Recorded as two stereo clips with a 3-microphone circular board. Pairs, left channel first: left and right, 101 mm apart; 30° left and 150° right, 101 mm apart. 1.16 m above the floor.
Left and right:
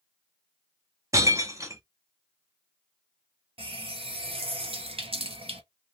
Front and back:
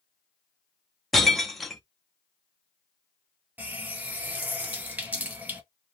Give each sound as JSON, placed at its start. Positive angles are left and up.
{"t": 1.1, "sound": "breaking glass", "azimuth_deg": -55, "distance_m": 0.7}
{"t": 3.6, "sound": "a running tap", "azimuth_deg": -75, "distance_m": 0.9}